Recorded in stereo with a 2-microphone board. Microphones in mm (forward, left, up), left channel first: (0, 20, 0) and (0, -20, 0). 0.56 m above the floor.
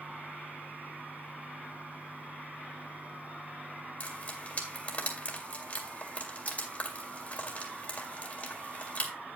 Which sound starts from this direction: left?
Frying, at 4.0 s.